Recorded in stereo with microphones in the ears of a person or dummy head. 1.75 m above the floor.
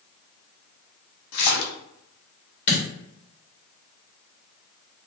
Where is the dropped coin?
40° left (ahead or behind), 1.9 m.